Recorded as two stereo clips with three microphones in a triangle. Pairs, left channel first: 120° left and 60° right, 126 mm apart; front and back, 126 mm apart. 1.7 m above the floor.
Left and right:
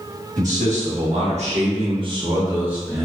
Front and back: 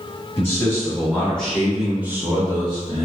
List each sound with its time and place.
0.4 s a man speaking: 70° right, 1.7 m; by 3.1 s 155° right, 0.8 m